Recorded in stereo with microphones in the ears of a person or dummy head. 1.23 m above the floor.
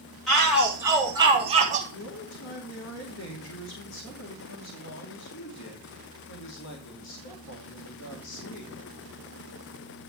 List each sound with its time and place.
0.3 s a shout: 5° left (ahead or behind), 2 m; by 1.8 s 35° right (ahead or behind), 1.7 m
1.9 s a man speaking: 80° left, 2.5 m